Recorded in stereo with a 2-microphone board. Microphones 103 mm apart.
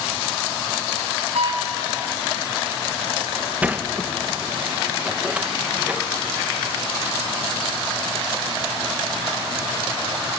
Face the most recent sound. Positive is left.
turn(degrees=-15)  # may be behind; listen again after turning